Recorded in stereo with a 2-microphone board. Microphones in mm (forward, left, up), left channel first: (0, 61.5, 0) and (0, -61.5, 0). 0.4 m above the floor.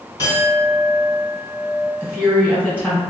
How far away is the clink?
About 1.5 m.